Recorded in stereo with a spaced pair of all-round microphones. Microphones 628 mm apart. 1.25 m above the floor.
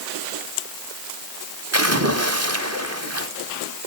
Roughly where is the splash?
Right.